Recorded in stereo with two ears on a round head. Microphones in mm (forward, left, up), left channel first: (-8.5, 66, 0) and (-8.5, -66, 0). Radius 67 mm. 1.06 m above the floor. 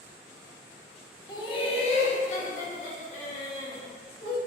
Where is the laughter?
25° left (ahead or behind), 0.7 m; by 4.4 s 55° left (ahead or behind), 1.8 m.